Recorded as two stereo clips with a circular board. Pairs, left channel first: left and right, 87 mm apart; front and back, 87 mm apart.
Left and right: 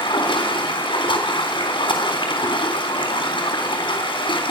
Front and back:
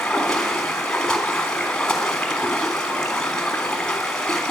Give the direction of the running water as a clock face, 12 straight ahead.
9 o'clock.